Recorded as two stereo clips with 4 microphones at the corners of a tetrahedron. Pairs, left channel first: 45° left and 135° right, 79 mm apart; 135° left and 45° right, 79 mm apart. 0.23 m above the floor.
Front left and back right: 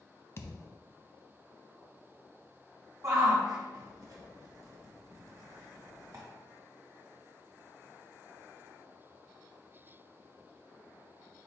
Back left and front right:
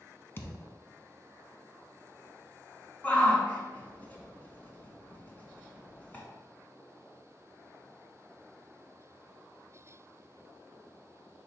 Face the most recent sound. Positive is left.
turn(degrees=-160)